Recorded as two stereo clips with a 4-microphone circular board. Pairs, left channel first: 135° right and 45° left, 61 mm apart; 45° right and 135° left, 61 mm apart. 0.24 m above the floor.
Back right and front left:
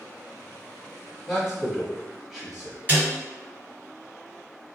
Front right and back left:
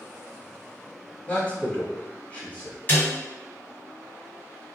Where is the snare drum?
Straight ahead, 1.9 m.